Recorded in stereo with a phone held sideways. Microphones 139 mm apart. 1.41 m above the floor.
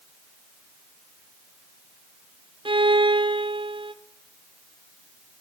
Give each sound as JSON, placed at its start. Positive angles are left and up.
{"t": 2.6, "sound": "a violin", "side_deg": -40, "distance_m": 0.7}